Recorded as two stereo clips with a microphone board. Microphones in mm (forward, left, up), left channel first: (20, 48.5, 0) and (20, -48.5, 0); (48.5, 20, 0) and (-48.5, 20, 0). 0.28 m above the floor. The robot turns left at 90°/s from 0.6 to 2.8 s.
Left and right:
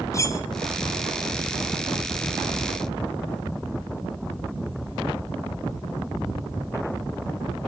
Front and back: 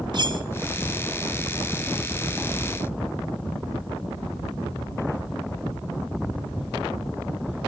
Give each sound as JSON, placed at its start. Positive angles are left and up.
{"t": 0.1, "sound": "cutlery clinking", "azimuth_deg": 145, "distance_m": 1.5}